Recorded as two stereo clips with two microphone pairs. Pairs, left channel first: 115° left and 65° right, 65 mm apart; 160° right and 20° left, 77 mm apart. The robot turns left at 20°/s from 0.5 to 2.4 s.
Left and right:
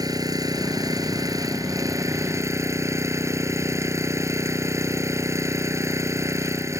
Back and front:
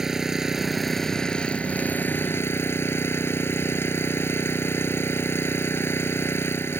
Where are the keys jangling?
I don't hear keys jangling.